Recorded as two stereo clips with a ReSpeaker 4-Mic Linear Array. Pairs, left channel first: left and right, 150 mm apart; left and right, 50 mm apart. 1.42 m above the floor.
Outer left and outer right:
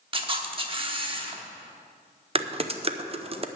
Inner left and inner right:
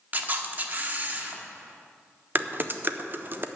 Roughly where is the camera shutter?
Right.